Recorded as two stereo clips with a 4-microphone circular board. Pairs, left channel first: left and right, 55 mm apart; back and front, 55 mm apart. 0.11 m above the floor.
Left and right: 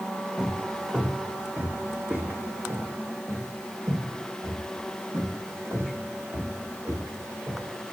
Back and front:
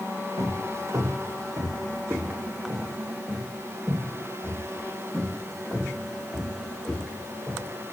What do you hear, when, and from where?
0.4 s footsteps: 5° right, 3 m; by 7.7 s 90° right, 9 m